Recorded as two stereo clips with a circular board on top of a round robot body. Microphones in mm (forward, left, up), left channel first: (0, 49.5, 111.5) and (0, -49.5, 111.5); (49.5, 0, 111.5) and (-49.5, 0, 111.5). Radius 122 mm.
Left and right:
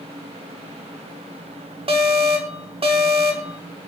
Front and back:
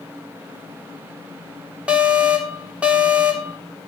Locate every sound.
1.9 s an alarm: 105° right, 4 m